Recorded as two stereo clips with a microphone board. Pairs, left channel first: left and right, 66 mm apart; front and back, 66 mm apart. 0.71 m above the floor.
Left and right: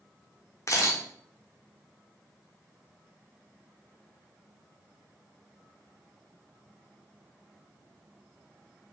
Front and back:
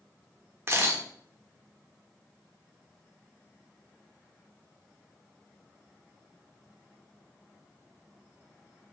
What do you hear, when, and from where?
0.7 s a camera shutter: 130° left, 0.7 m